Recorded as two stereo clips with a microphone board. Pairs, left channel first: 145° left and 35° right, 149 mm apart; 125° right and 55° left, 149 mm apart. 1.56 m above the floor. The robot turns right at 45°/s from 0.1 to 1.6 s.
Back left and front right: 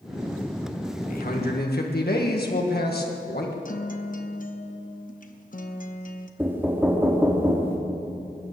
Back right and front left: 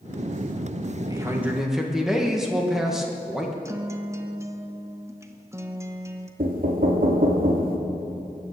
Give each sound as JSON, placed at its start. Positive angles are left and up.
{"t": 1.1, "sound": "a man speaking", "azimuth_deg": 120, "distance_m": 1.7}
{"t": 3.6, "sound": "a guitar", "azimuth_deg": 125, "distance_m": 1.0}
{"t": 6.4, "sound": "knocking", "azimuth_deg": 40, "distance_m": 1.9}